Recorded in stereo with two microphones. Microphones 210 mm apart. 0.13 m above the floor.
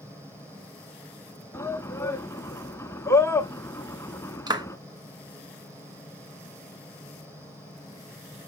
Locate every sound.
0.0 s running water: 15° right (ahead or behind), 3 m
1.5 s a shout: 15° left (ahead or behind), 1.0 m
4.5 s a clap: 20° right (ahead or behind), 1.0 m